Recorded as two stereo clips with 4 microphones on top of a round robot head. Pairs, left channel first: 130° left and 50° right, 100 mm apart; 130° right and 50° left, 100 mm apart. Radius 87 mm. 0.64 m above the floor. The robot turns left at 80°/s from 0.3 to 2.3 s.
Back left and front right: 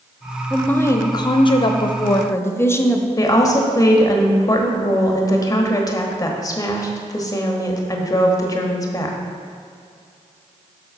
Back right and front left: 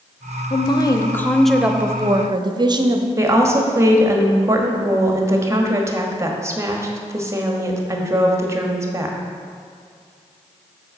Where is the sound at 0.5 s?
145° right, 0.9 m; by 3.1 s 75° left, 0.9 m.